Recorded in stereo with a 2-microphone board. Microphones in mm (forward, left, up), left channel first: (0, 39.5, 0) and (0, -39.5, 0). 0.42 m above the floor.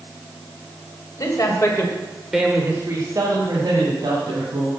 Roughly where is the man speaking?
Left.